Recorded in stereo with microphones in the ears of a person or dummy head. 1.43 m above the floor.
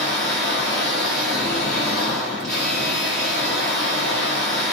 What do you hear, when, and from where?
0.0 s a machine running: 5° left (ahead or behind), 0.9 m